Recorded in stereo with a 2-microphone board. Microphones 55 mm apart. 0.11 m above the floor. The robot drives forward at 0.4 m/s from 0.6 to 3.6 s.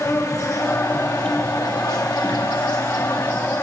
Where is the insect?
60° left (ahead or behind), 1.2 m.